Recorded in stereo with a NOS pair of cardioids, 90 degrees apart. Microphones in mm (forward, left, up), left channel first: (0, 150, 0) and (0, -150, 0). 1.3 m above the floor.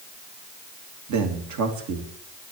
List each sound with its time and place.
1.1 s a man speaking: 70° right, 2.5 m